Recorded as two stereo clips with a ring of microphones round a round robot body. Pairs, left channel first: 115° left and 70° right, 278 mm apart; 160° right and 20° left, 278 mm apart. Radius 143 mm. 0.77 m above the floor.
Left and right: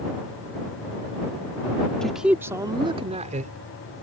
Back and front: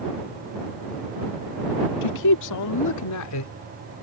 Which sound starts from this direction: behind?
A man speaking, at 2.0 s.